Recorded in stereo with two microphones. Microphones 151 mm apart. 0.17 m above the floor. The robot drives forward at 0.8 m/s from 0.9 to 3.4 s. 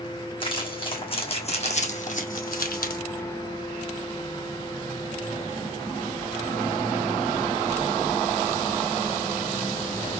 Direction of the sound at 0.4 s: 35° left (ahead or behind).